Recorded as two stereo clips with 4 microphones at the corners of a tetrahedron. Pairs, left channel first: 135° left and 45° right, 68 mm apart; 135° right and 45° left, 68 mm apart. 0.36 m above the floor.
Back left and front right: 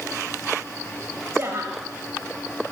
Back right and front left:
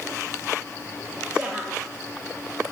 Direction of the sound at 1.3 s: 20° right.